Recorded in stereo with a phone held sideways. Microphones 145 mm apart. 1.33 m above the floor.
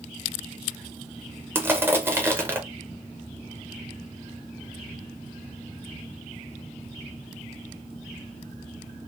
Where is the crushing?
15° right (ahead or behind), 0.6 m.